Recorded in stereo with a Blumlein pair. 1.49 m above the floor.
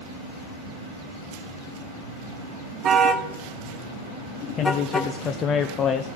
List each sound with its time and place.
2.8 s a car horn: 25° right, 2.5 m; by 5.1 s 15° left, 2.5 m
4.6 s a man speaking: 25° left, 0.8 m